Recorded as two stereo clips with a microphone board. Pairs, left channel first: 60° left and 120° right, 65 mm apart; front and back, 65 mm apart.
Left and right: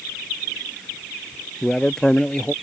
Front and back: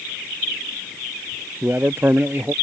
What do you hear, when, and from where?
1.6 s a man speaking: 135° left